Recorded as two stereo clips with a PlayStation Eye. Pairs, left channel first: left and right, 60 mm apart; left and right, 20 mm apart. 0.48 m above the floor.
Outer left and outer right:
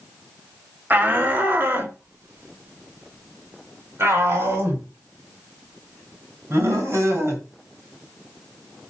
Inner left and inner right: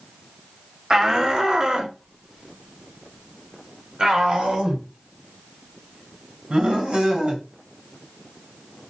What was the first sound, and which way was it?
A shout, 30° right (ahead or behind).